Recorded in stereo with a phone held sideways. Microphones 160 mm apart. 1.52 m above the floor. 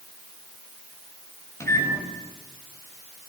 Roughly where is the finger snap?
No finger snap in this recording.